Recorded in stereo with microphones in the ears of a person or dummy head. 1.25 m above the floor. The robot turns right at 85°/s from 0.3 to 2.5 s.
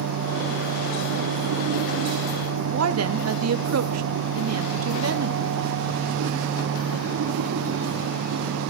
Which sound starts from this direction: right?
A woman speaking, at 2.7 s.